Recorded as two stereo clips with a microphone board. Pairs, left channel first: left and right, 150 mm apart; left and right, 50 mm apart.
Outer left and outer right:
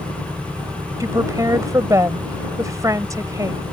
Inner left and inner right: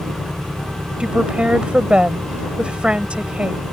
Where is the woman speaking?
25° right (ahead or behind).